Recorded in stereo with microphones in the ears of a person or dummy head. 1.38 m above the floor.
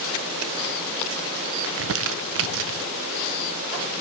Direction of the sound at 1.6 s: 75° right (ahead or behind).